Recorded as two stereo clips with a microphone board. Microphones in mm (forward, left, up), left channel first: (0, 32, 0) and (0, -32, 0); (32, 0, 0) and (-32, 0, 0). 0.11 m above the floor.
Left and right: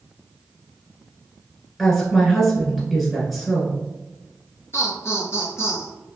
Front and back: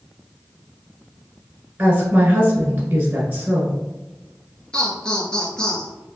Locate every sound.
1.8 s a woman speaking: 170° left, 1.3 m
4.7 s laughter: 70° left, 1.5 m